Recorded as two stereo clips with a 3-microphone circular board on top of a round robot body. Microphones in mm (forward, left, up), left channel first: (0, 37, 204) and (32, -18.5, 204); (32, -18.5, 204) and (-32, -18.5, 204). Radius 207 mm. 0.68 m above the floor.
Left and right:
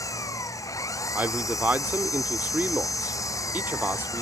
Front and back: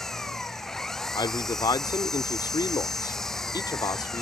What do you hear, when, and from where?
0.0 s an engine running: 85° left
1.1 s a man speaking: straight ahead